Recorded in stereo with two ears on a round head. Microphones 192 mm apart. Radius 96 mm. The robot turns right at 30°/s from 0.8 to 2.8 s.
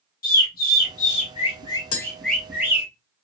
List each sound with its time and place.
0.2 s a bird: 45° left (ahead or behind), 2 m; by 2.9 s 10° right (ahead or behind), 2 m
1.9 s tapping: 70° left (ahead or behind), 1.3 m